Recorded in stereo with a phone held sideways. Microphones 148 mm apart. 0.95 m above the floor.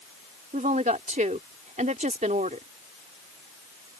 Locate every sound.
0.5 s a woman speaking: 65° right (ahead or behind)